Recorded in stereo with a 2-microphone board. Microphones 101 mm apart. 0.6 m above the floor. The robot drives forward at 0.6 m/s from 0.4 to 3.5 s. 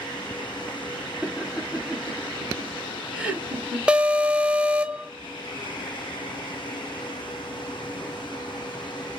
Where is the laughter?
15° right (ahead or behind), 7.5 m; by 3.8 s 10° right (ahead or behind), 9 m.